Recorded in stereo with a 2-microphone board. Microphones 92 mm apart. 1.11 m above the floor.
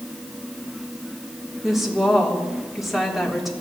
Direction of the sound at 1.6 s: Centre (ahead or behind).